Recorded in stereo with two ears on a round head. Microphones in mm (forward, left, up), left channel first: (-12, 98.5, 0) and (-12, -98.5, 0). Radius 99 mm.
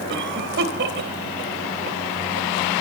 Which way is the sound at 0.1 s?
60° right (ahead or behind).